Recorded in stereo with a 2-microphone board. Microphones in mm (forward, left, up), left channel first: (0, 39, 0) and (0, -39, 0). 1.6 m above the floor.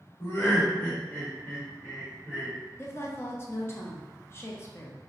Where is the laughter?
40° left (ahead or behind), 1.0 m; by 2.5 s 10° right (ahead or behind), 1.5 m.